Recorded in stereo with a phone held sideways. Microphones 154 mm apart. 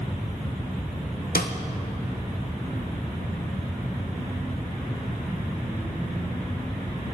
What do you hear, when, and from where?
1.4 s a snare drum: 80° left, 1.5 m